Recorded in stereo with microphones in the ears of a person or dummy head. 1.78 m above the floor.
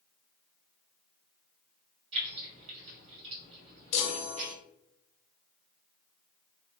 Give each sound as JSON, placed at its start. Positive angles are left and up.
{"t": 2.1, "sound": "keys jangling", "side_deg": -40, "distance_m": 1.5}
{"t": 3.9, "sound": "a chime", "side_deg": 45, "distance_m": 0.6}